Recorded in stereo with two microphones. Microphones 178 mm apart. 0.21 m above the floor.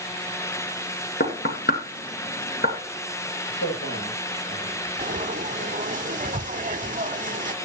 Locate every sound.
1.2 s knocking: 60° left (ahead or behind), 2.5 m
3.5 s a man speaking: 80° left, 8 m
5.0 s frying: 45° right (ahead or behind), 0.7 m